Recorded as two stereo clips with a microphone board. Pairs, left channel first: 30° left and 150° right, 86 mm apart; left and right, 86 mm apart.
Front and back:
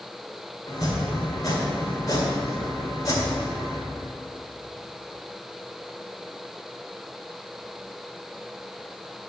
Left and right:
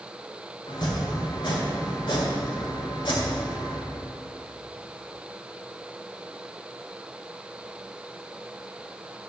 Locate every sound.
0.7 s chopping: 75° left, 1.7 m